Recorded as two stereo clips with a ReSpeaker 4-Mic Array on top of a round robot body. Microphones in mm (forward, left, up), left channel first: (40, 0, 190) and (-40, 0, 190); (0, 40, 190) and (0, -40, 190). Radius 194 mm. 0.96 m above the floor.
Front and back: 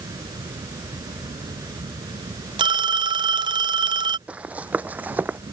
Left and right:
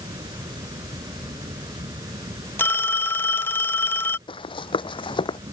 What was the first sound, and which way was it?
An insect, 130° right.